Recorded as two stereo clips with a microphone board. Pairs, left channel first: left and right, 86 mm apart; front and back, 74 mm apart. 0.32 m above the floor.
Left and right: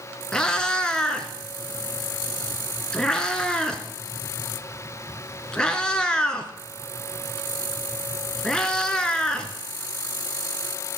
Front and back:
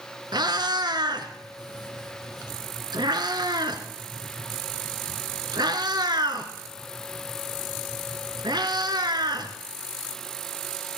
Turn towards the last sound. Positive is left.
turn(degrees=170)